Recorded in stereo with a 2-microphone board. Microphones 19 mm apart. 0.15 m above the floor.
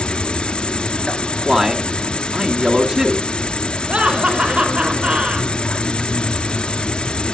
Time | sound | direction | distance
0.0 | an insect | 60° left (ahead or behind) | 0.9 m
1.4 | a man speaking | 25° right (ahead or behind) | 1.9 m
3.9 | laughter | 70° right (ahead or behind) | 4.5 m